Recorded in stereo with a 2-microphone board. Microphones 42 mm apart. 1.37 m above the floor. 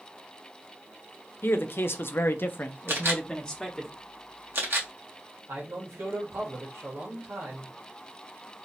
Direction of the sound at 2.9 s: 65° right (ahead or behind).